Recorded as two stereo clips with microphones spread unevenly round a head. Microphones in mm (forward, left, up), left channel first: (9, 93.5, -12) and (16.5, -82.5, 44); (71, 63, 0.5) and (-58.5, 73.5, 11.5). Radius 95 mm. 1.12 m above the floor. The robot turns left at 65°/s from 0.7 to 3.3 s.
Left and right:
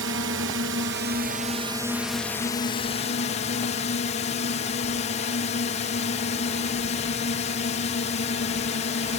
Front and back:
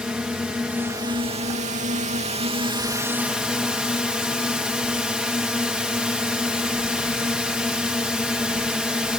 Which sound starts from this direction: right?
A drone, at 0.0 s.